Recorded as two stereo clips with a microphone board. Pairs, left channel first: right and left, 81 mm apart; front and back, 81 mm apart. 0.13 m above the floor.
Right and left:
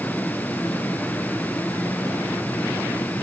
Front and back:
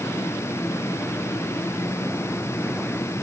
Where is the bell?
I don't hear a bell.